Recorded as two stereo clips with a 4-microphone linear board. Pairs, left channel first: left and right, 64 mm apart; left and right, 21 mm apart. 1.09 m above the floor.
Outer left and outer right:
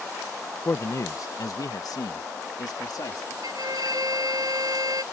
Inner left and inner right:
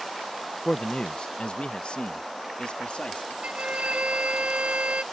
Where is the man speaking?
40° left (ahead or behind); by 3.3 s 75° left (ahead or behind).